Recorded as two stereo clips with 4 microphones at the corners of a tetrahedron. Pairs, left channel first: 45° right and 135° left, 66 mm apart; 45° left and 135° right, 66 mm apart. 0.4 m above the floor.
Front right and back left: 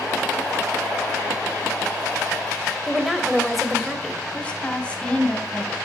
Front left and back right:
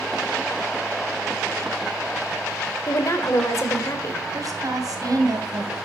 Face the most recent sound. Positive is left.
turn(degrees=-115)